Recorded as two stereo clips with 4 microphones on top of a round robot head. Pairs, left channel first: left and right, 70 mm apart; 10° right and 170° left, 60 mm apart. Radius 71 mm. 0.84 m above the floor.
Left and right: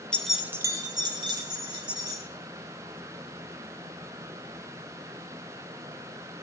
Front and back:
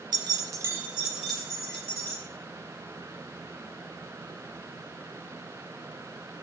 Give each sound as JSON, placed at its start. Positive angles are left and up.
{"t": 0.1, "sound": "keys jangling", "azimuth_deg": 165, "distance_m": 0.6}